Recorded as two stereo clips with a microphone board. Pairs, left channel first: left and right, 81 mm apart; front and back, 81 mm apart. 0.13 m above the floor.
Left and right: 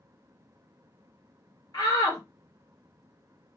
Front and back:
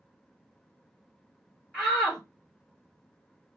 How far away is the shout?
About 2 m.